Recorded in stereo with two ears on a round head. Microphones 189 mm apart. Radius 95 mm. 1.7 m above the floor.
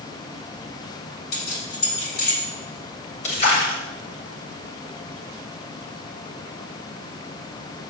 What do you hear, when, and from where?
1.3 s keys jangling: 50° left (ahead or behind), 3.5 m
3.2 s a splash: 35° left (ahead or behind), 2.5 m